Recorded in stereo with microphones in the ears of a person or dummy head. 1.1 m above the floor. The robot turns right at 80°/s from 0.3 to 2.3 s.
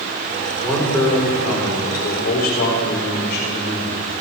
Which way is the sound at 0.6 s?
10° right.